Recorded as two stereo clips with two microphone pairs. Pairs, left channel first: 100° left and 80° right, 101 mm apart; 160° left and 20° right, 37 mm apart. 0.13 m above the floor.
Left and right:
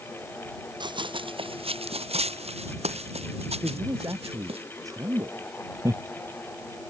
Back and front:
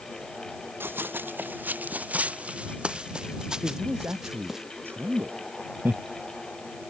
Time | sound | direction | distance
0.8 | running footsteps | 40° right | ?
3.6 | a man speaking | 25° right | ?
5.8 | laughter | 25° right | ?